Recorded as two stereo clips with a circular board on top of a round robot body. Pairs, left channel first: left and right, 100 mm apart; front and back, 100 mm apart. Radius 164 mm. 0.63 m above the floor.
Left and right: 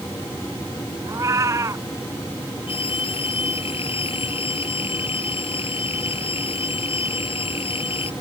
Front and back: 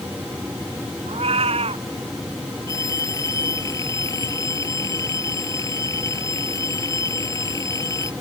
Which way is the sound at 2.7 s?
60° left.